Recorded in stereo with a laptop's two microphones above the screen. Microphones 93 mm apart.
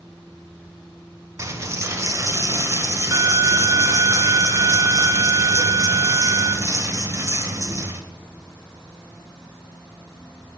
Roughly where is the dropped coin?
Right.